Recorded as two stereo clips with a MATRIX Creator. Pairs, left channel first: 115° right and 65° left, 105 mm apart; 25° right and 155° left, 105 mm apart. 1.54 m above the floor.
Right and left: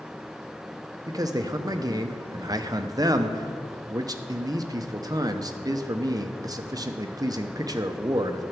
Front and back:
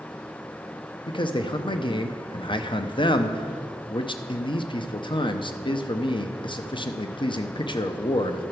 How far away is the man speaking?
About 0.8 m.